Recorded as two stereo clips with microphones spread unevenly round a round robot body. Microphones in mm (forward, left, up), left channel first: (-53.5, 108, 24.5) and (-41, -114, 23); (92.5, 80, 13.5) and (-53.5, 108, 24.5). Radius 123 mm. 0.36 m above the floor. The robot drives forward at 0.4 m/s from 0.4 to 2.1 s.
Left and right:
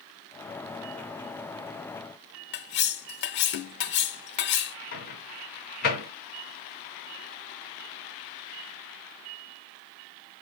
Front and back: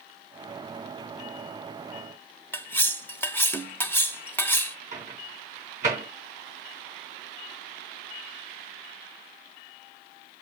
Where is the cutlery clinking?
60° left, 0.8 m.